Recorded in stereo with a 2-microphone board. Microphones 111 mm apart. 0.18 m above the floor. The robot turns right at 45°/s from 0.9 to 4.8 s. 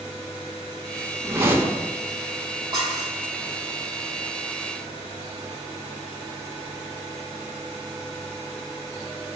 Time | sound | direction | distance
1.2 | a whoosh | 25° right (ahead or behind) | 1.7 m
2.7 | dishes clattering | 35° right (ahead or behind) | 4.5 m